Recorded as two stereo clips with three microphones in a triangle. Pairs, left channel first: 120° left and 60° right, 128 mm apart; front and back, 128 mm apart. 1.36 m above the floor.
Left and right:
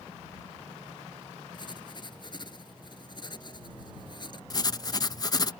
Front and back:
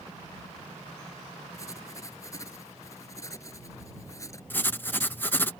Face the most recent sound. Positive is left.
turn(degrees=70)